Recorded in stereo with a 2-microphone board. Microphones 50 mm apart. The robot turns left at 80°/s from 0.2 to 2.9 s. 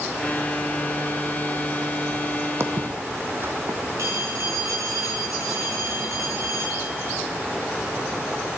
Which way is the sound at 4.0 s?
80° right.